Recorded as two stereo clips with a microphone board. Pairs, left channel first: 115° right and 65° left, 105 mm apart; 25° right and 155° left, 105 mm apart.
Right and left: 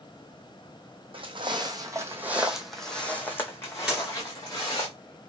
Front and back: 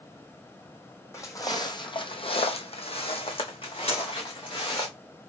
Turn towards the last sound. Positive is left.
turn(degrees=-20)